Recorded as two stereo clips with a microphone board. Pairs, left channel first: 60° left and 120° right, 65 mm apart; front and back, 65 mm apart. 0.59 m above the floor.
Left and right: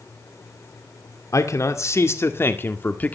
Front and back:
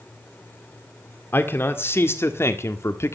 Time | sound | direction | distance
1.3 | a man speaking | 45° left | 1.9 m